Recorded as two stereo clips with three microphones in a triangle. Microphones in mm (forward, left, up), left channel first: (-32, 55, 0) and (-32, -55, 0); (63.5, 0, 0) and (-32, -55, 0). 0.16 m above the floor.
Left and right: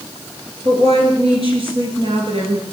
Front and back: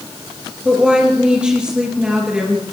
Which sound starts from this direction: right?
A woman speaking, at 0.7 s.